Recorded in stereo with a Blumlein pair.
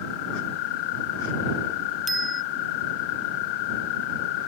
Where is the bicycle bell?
10° right.